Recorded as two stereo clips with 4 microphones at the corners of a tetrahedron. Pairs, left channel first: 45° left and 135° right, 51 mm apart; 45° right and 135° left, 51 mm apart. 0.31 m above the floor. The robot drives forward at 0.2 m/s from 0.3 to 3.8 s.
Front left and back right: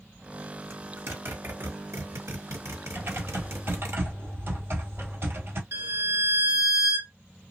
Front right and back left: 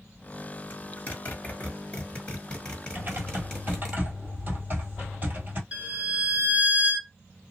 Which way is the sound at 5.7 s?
160° right.